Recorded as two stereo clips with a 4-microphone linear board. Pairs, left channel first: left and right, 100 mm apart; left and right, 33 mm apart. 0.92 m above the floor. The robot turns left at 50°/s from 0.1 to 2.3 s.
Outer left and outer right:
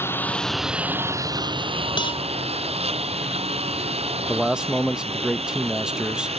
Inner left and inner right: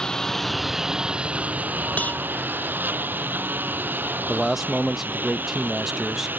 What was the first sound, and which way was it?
A lawn mower, 20° left (ahead or behind).